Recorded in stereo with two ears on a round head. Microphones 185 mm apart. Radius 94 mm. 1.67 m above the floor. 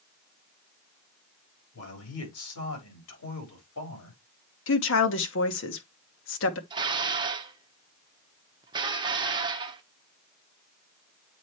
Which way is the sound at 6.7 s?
25° right (ahead or behind).